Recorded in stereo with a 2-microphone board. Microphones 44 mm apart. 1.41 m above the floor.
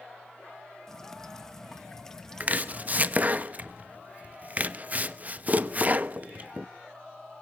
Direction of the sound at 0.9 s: 10° left (ahead or behind).